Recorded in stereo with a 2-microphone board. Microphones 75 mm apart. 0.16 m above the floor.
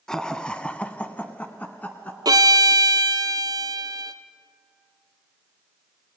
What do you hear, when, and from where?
0.1 s laughter: 5° left (ahead or behind), 1.3 m; by 2.1 s 20° left (ahead or behind), 1.6 m
2.2 s a violin: 60° right (ahead or behind), 1.1 m